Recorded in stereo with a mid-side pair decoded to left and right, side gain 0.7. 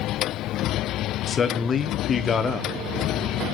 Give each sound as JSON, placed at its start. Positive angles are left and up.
{"t": 1.3, "sound": "a man speaking", "azimuth_deg": 30, "distance_m": 1.3}